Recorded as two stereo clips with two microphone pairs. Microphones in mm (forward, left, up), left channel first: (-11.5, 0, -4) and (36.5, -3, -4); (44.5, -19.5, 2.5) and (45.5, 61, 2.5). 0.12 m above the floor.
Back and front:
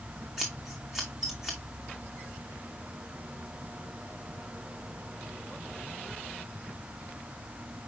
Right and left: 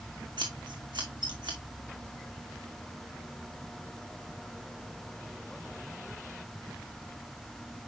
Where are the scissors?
80° left, 2.5 m.